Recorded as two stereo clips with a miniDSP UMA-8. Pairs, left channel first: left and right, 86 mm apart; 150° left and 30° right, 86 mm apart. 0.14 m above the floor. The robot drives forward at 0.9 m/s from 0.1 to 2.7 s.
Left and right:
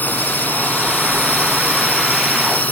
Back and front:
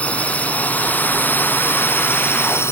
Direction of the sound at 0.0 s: 105° left.